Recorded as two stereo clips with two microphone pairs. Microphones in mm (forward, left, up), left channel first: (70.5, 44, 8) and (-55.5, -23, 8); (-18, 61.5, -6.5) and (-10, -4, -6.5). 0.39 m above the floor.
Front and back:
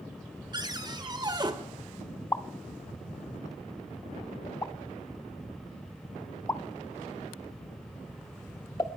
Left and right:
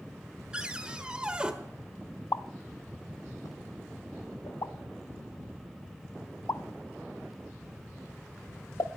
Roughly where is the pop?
Left.